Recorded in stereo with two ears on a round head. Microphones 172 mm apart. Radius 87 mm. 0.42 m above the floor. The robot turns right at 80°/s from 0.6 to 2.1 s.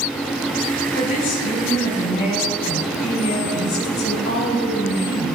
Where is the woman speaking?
25° left, 3 m; by 5.3 s 115° left, 3 m.